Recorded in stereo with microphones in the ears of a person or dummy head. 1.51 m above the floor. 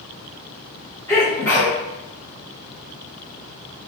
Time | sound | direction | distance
1.1 | a sneeze | 15° left (ahead or behind) | 2 m